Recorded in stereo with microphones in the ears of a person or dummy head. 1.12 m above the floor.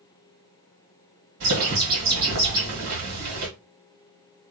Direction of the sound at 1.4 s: 55° right (ahead or behind).